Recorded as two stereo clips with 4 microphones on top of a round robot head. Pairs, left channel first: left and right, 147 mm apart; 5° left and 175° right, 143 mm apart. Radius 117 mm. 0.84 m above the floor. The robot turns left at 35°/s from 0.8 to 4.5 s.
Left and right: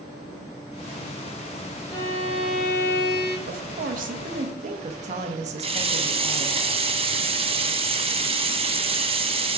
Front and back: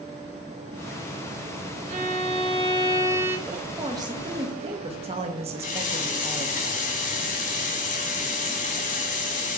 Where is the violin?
160° left, 0.9 m; by 3.4 s 105° left, 0.9 m.